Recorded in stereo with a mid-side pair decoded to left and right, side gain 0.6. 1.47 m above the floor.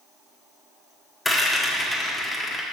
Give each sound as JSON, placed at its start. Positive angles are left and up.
{"t": 1.2, "sound": "a rattle", "azimuth_deg": 10, "distance_m": 1.6}